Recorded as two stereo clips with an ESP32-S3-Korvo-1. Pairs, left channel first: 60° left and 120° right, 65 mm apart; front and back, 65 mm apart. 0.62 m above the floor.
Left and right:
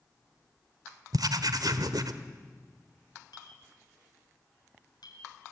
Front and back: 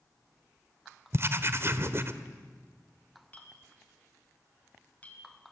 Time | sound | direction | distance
1.1 | writing | 130° right | 1.4 m
3.3 | a clink | 70° left | 3.5 m